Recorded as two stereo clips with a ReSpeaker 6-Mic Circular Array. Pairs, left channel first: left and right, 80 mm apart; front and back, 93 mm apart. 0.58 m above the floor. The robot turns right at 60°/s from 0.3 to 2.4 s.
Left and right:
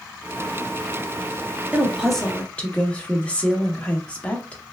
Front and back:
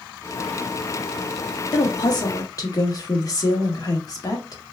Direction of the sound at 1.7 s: 15° right.